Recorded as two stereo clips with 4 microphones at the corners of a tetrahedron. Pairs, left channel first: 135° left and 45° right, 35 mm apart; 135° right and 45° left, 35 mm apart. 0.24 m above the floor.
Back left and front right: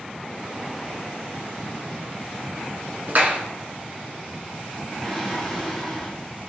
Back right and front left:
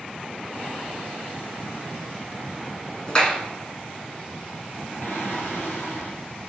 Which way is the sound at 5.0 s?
140° right.